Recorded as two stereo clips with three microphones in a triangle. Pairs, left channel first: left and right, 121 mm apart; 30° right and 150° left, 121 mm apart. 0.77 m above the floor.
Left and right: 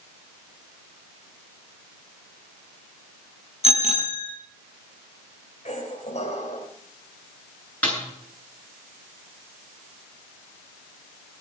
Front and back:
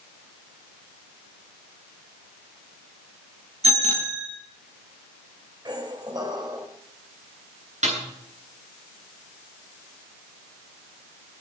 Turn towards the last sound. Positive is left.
turn(degrees=170)